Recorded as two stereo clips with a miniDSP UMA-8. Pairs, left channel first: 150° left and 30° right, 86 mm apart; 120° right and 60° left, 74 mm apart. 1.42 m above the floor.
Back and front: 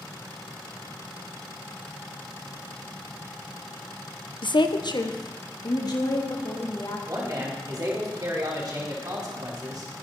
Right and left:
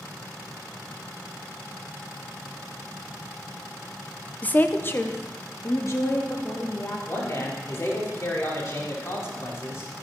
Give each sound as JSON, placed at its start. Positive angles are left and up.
{"t": 4.4, "sound": "a woman speaking", "azimuth_deg": 170, "distance_m": 0.8}
{"t": 7.1, "sound": "a man speaking", "azimuth_deg": -70, "distance_m": 4.5}